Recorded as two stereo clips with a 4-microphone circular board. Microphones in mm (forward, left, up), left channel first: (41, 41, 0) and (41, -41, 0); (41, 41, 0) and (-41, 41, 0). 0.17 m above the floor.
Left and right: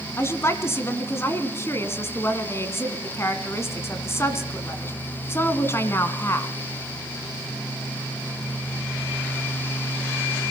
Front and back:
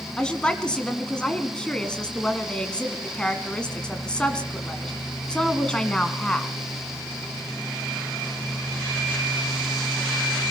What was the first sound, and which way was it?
A woman speaking, 70° left.